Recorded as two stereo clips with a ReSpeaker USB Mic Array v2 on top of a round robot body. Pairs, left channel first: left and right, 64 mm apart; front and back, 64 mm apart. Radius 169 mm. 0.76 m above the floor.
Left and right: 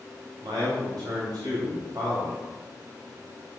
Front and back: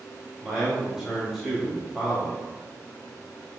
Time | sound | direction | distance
0.4 | a man speaking | 90° right | 3 m